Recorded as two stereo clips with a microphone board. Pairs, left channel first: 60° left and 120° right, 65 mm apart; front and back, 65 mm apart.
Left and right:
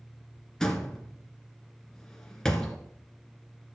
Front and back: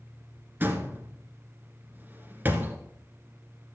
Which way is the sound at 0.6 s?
140° left.